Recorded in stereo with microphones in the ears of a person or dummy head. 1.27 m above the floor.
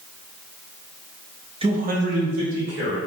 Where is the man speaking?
25° right (ahead or behind), 0.5 m; by 3.0 s 70° right (ahead or behind), 1.7 m.